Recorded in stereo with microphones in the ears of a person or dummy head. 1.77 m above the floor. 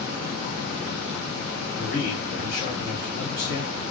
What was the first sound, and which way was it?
A man speaking, 45° left (ahead or behind).